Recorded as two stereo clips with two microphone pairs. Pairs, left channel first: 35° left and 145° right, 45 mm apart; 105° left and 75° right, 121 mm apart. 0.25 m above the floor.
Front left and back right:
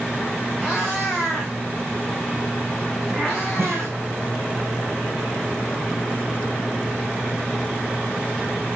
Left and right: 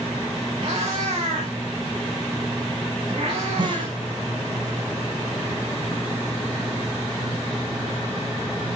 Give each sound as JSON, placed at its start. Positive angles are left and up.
{"t": 0.6, "sound": "a cat meowing", "azimuth_deg": -50, "distance_m": 5.0}
{"t": 3.6, "sound": "a snare drum", "azimuth_deg": -125, "distance_m": 7.5}